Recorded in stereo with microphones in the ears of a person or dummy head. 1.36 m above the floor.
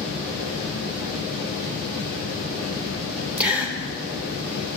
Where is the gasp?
10° right (ahead or behind), 1.2 m.